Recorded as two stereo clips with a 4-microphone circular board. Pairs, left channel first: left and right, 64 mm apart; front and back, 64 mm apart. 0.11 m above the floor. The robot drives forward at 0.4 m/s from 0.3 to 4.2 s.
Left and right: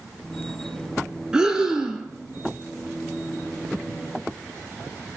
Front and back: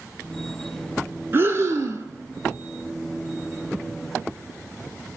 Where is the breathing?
160° right, 0.6 m; by 2.1 s 170° right, 0.8 m.